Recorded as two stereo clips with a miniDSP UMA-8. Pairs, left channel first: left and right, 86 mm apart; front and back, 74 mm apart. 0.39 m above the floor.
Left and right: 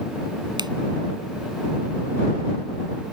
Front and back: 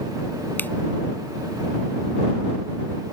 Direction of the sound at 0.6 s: 65° right.